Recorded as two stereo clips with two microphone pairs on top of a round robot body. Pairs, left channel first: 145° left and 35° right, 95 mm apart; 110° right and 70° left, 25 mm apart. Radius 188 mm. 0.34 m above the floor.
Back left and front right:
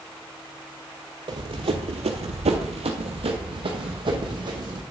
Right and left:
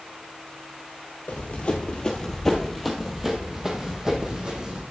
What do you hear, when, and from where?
1.3 s running footsteps: 75° right, 0.9 m; by 4.8 s 10° left, 1.9 m